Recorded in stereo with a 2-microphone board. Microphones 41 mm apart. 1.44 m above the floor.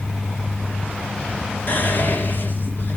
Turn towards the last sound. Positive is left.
turn(degrees=50)  # may be behind; listen again after turning